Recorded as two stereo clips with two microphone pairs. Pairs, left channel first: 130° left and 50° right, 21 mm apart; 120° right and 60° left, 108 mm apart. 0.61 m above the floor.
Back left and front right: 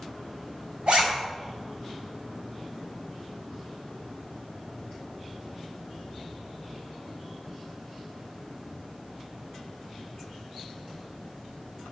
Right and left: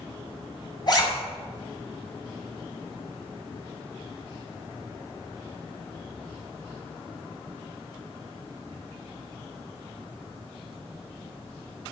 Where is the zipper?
75° right, 4 m.